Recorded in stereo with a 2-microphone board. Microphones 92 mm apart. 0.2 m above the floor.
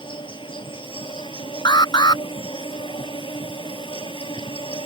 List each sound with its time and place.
0.0 s an insect: 65° left (ahead or behind)
1.6 s an alarm: 50° left (ahead or behind)